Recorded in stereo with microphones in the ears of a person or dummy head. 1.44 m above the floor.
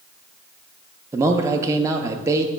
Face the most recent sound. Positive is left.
turn(degrees=-15)  # may be behind; listen again after turning